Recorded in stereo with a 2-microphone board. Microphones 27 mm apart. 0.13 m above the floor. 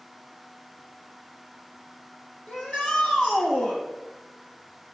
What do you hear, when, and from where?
2.5 s a shout: 50° left (ahead or behind), 3.5 m